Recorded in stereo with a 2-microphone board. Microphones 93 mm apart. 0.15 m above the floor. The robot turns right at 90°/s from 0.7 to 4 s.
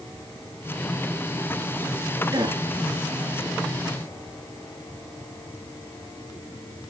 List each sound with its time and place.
2.3 s a gasp: 45° right (ahead or behind), 1.4 m; by 2.6 s 50° right (ahead or behind), 1.4 m